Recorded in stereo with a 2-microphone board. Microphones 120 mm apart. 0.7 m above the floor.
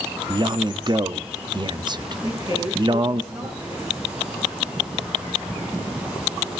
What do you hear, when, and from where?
0.3 s a man speaking: 40° right (ahead or behind), 0.9 m
2.2 s a woman speaking: 35° right (ahead or behind), 8.5 m